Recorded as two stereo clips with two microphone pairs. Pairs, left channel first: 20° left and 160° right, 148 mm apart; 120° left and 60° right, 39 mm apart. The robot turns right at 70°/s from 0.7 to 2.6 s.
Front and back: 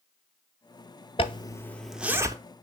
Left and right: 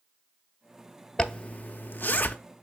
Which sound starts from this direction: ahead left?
A zipper, at 1.2 s.